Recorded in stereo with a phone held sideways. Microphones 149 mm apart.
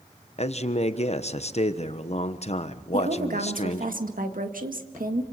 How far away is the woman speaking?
About 1.9 m.